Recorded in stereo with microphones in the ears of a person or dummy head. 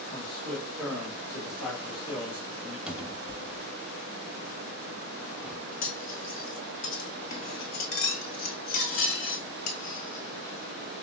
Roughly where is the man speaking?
Centre.